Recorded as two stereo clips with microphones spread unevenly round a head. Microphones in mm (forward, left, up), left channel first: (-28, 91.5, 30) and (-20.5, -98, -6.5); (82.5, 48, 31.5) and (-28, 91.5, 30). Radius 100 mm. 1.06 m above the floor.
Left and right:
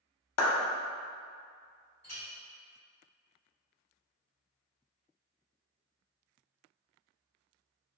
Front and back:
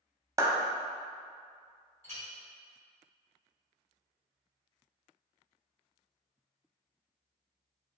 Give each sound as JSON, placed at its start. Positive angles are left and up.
{"t": 0.4, "sound": "a clap", "azimuth_deg": 90, "distance_m": 0.6}
{"t": 2.0, "sound": "a clink", "azimuth_deg": 10, "distance_m": 1.8}